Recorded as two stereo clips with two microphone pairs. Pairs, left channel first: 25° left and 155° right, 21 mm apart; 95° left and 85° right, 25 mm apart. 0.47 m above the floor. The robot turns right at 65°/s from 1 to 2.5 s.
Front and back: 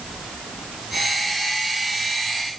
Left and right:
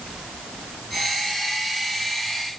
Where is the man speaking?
I don't hear a man speaking.